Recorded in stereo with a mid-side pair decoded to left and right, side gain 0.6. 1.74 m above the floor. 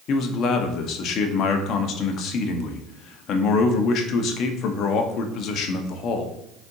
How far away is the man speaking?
About 0.8 m.